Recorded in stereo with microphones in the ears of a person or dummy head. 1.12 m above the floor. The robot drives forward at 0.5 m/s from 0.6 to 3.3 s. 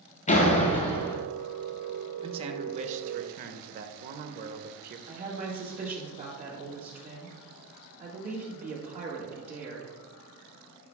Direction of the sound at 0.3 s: 35° left (ahead or behind).